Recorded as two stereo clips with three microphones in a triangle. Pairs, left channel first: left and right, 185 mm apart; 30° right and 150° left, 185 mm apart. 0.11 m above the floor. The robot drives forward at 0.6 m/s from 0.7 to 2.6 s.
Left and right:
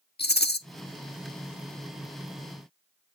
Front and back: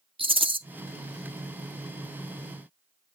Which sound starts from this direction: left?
A rattle, at 0.2 s.